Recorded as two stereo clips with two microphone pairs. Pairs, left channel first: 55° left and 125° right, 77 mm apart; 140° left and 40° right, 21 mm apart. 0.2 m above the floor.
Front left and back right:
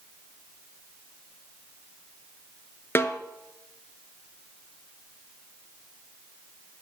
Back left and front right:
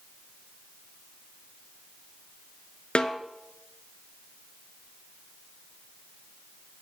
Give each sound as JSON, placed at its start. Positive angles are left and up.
{"t": 3.0, "sound": "a snare drum", "azimuth_deg": 110, "distance_m": 0.9}